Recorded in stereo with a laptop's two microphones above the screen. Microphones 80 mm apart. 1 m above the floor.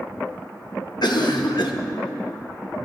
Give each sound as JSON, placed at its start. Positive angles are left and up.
{"t": 1.0, "sound": "a cough", "side_deg": 65, "distance_m": 1.2}